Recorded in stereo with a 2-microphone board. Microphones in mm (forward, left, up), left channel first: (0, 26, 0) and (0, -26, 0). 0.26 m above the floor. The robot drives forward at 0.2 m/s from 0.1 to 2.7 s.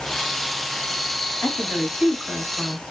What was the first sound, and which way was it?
A woman speaking, 15° left (ahead or behind).